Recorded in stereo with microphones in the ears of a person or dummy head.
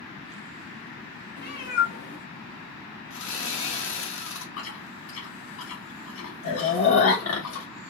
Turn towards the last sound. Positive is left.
turn(degrees=75)  # may be behind; listen again after turning